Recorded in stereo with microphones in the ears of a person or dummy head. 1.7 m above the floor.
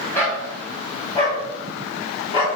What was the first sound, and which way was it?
A dog barking, 15° left (ahead or behind).